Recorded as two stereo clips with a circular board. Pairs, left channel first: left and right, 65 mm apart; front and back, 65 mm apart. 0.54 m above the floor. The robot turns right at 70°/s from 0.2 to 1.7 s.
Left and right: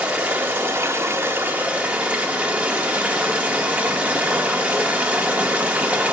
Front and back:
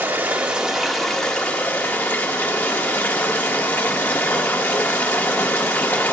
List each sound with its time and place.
0.0 s running water: 145° right, 1.0 m; by 6.1 s 40° right, 1.0 m